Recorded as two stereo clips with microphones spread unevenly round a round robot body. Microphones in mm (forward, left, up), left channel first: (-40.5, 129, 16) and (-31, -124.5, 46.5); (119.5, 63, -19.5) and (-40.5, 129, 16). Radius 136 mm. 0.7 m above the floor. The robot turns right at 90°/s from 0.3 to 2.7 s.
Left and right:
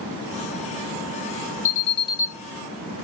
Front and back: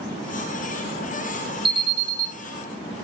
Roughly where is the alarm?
Left.